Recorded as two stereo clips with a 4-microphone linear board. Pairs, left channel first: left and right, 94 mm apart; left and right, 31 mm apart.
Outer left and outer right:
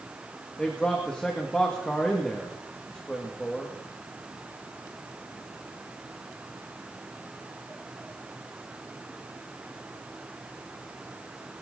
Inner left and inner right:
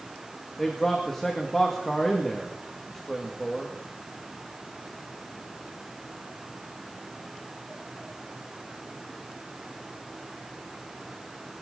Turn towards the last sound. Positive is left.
turn(degrees=10)  # may be behind; listen again after turning